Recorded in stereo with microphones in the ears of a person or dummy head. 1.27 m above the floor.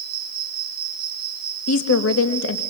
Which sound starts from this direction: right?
An insect, at 0.0 s.